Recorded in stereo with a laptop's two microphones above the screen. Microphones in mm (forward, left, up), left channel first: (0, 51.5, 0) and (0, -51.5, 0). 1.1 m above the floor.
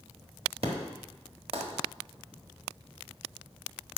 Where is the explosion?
60° right (ahead or behind), 1.2 m.